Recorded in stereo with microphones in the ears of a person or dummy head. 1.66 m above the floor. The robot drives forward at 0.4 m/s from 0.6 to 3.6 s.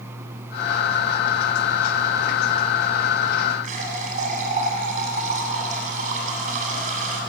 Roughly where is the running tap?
Right.